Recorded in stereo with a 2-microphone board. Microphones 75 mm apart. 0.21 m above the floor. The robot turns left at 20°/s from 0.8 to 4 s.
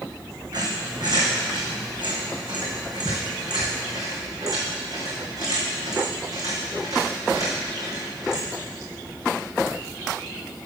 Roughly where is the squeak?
Right.